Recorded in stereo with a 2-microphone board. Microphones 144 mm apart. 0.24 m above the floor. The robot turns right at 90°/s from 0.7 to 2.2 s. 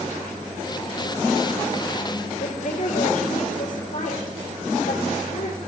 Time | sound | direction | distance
2.4 | a woman speaking | 65° left (ahead or behind) | 4.5 m